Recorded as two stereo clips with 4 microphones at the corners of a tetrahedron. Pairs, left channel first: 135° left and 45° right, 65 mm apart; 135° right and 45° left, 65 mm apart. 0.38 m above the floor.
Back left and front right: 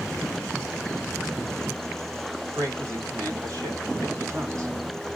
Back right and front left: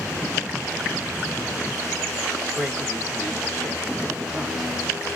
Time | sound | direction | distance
2.5 | a man speaking | 35° right | 2 m